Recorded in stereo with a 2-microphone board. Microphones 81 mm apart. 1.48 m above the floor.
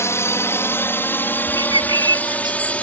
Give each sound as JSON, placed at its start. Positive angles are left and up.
{"t": 0.0, "sound": "a drone", "side_deg": 35}
{"t": 1.6, "sound": "a bird", "side_deg": -70}